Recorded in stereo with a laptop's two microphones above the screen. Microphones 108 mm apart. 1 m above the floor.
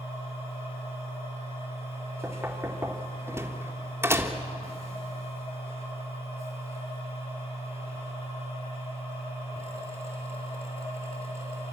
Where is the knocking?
25° right (ahead or behind), 1.6 m.